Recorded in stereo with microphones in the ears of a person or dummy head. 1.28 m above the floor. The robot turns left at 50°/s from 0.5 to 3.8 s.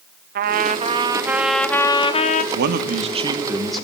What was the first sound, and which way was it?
A trumpet, 130° right.